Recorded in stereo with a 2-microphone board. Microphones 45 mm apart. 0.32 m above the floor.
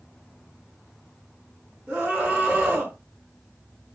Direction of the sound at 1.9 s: 35° right (ahead or behind).